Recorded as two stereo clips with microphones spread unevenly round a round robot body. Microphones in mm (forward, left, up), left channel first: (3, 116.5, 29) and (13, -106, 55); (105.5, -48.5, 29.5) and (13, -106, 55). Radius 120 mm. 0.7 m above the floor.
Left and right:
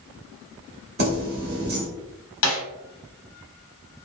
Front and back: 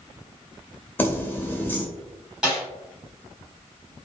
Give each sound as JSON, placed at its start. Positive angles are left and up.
{"t": 1.0, "sound": "keys jangling", "azimuth_deg": -40, "distance_m": 0.9}
{"t": 2.4, "sound": "a snare drum", "azimuth_deg": 125, "distance_m": 0.8}